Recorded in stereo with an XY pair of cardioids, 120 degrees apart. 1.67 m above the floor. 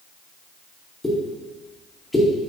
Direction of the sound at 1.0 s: 15° left.